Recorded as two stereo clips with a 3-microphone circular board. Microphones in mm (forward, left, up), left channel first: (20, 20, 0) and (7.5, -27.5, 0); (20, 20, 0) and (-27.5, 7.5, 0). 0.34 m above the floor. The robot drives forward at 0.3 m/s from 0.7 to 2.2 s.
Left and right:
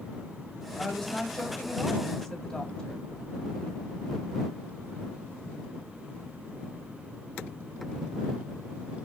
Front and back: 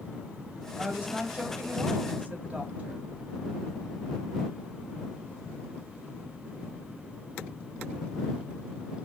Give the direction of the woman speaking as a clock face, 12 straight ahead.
8 o'clock.